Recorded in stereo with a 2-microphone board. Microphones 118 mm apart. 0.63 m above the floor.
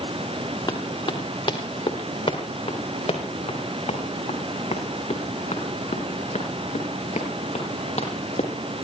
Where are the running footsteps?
30° left (ahead or behind), 3.5 m; by 8.5 s 70° left (ahead or behind), 8.5 m.